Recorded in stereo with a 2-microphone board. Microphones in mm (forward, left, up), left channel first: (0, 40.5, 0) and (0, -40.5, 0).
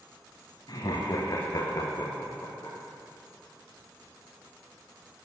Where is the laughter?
60° left (ahead or behind), 2 m; by 2.8 s 25° left (ahead or behind), 4 m.